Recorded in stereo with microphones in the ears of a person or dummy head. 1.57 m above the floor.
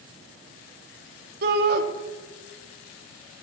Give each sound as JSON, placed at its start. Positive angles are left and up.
{"t": 1.4, "sound": "a shout", "side_deg": -55, "distance_m": 1.0}